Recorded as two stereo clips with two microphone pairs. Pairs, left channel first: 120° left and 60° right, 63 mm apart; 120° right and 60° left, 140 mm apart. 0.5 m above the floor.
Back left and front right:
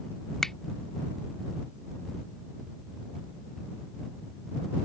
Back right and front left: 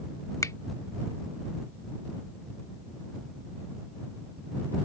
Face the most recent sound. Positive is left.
turn(degrees=-170)